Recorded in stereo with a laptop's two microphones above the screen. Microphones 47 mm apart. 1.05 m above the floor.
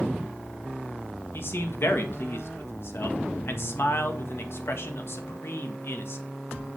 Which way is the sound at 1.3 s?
55° left (ahead or behind).